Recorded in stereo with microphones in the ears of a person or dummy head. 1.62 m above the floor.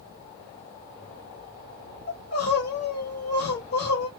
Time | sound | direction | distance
2.1 | crying | 60° left (ahead or behind) | 1.5 m